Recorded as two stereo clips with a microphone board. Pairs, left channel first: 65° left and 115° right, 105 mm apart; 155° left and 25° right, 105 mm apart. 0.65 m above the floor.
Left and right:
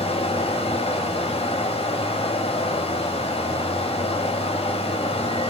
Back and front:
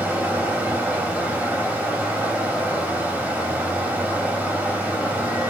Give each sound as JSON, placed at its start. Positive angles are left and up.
{"t": 0.0, "sound": "running water", "azimuth_deg": 55, "distance_m": 0.8}